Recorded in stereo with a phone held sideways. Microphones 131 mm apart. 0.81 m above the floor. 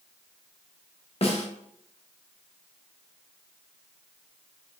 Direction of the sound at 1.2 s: 45° left (ahead or behind).